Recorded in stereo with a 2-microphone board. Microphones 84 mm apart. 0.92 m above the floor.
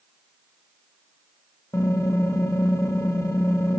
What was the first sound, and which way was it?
Typing on a keyboard, 40° left (ahead or behind).